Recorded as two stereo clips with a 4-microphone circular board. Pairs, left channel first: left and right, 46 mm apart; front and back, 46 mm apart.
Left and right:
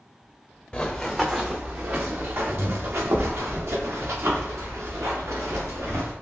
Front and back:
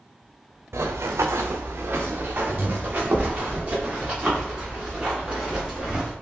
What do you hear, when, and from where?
0.7 s running footsteps: 165° left, 0.6 m; by 6.1 s 105° right, 3 m